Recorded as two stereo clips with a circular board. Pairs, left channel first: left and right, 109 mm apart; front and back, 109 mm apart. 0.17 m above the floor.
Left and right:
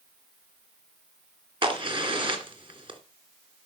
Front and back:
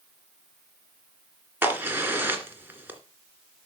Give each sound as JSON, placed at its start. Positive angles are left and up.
{"t": 1.6, "sound": "a crack", "azimuth_deg": -110, "distance_m": 2.5}